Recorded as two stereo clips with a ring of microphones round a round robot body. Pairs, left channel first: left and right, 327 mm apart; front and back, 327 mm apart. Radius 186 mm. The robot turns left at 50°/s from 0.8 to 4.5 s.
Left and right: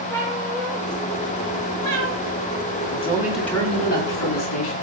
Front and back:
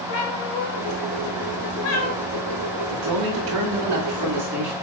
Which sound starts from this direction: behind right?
A man speaking, at 2.9 s.